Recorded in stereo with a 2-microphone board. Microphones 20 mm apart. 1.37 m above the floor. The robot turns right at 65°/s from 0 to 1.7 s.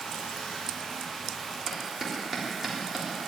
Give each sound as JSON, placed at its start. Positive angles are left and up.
{"t": 0.0, "sound": "running water", "azimuth_deg": 80, "distance_m": 6.0}
{"t": 1.7, "sound": "a clap", "side_deg": -20, "distance_m": 3.5}